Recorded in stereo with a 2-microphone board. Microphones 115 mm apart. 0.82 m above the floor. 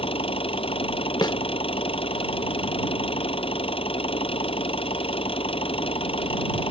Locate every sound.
0.0 s an engine running: 50° left (ahead or behind)
1.2 s a snare drum: 40° left (ahead or behind)